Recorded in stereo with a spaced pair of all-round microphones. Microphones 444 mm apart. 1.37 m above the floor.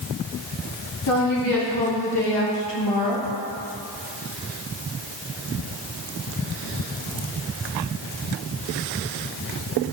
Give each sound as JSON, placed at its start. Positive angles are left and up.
{"t": 1.1, "sound": "a woman speaking", "side_deg": 45, "distance_m": 3.0}